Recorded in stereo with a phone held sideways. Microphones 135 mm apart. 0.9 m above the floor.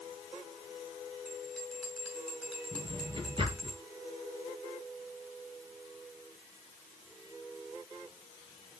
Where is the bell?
Centre (ahead or behind), 4 m.